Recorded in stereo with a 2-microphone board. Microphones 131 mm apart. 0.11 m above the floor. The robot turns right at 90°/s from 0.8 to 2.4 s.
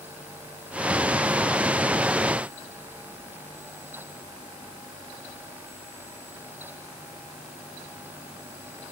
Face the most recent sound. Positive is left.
No sound to turn to.